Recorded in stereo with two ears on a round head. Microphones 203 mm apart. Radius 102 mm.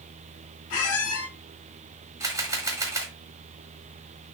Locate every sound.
0.7 s a squeak: 70° left (ahead or behind), 1.3 m
2.2 s a camera shutter: 15° right (ahead or behind), 1.1 m